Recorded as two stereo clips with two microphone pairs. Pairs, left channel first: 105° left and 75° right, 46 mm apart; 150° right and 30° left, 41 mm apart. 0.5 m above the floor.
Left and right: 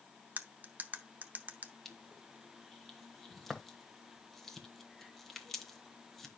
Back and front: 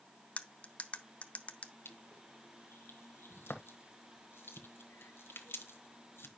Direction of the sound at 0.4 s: 110° right.